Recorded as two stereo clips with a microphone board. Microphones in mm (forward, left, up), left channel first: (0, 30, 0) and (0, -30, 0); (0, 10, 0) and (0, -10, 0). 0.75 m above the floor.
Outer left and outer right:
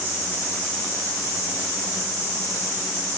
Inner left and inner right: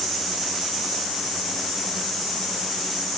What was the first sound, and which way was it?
Only background noise.